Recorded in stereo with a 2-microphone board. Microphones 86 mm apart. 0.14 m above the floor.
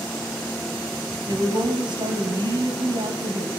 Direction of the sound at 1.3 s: 65° right (ahead or behind).